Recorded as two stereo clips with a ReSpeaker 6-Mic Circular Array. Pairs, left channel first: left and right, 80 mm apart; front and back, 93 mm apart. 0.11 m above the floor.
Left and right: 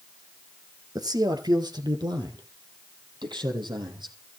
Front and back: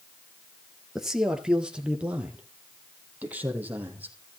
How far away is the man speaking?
About 2.5 m.